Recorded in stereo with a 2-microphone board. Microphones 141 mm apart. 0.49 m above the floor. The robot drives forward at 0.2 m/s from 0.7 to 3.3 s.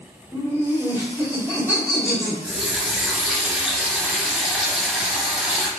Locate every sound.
0.3 s laughter: 20° left (ahead or behind), 1.5 m
2.4 s a running tap: centre (ahead or behind), 0.8 m